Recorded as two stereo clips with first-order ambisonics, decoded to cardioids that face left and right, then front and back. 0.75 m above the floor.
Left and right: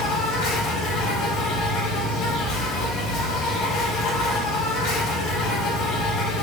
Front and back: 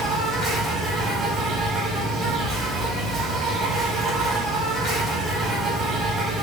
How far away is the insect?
About 4 m.